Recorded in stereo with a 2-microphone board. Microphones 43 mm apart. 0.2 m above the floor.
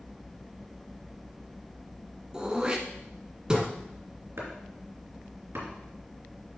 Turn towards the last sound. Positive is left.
turn(degrees=-60)  # may be behind; listen again after turning